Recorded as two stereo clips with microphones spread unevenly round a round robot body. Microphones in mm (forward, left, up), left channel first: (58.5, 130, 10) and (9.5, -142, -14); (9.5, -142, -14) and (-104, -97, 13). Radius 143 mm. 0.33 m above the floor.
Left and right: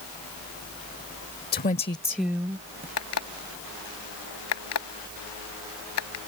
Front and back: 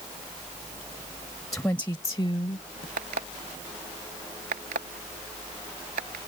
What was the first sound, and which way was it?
A woman speaking, 45° left.